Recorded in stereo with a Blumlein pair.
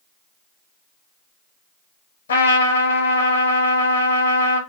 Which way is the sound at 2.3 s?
65° left.